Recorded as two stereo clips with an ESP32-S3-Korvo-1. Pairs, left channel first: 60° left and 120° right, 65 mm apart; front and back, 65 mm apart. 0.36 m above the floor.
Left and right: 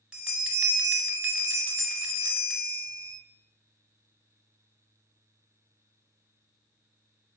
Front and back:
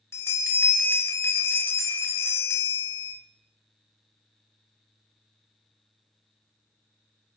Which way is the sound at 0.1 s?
45° right.